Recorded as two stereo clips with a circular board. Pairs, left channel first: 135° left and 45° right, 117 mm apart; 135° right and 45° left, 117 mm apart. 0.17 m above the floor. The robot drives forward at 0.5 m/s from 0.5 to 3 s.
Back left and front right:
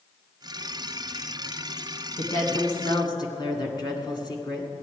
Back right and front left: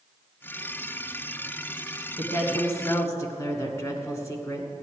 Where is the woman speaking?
165° left, 1.4 m; by 4.7 s 170° left, 1.6 m.